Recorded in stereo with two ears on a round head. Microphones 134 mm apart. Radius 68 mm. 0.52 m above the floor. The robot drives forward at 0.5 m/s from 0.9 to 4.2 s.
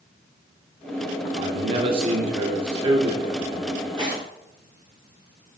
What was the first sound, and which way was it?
A man speaking, 35° right (ahead or behind).